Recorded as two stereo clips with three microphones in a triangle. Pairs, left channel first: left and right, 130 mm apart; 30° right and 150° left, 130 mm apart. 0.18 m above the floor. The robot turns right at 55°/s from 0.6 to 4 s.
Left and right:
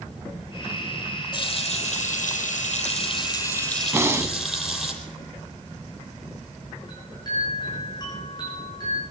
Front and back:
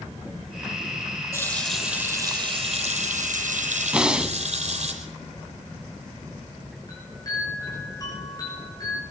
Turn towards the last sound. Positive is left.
turn(degrees=30)